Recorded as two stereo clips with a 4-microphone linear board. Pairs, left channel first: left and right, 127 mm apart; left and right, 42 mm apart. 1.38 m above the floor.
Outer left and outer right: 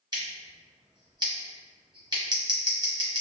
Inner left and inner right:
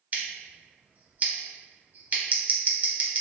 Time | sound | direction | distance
0.1 | scissors | 35° right (ahead or behind) | 0.9 m